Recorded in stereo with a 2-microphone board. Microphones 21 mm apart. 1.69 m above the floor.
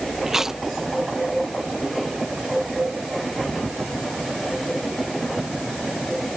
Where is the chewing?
20° right (ahead or behind).